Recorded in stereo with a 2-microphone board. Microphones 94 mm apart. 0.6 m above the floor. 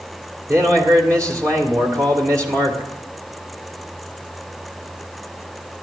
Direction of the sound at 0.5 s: 35° right (ahead or behind).